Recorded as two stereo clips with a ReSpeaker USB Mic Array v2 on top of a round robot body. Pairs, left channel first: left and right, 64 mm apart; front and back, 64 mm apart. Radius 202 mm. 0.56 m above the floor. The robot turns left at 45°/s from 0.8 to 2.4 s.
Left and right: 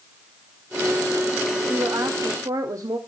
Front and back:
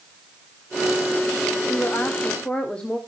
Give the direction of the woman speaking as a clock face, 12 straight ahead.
1 o'clock.